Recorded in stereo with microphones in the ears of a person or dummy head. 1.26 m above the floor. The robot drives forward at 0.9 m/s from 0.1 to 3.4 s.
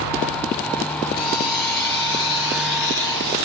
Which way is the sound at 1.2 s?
60° left (ahead or behind).